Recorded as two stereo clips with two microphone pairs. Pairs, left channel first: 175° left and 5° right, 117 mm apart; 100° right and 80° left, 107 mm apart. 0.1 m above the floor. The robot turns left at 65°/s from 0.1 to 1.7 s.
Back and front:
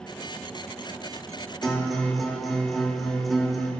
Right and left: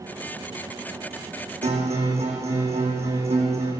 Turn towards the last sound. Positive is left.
turn(degrees=85)